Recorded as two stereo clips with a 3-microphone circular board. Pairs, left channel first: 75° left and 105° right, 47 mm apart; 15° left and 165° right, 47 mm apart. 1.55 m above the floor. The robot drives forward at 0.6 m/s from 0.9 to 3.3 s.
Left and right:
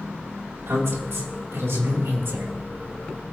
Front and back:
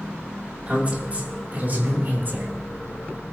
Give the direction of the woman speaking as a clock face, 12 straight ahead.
4 o'clock.